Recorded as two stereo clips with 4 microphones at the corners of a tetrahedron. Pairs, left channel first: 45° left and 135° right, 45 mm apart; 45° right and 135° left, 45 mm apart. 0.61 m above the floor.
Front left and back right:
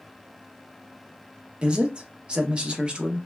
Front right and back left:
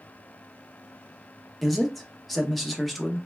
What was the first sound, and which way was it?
A man speaking, 130° right.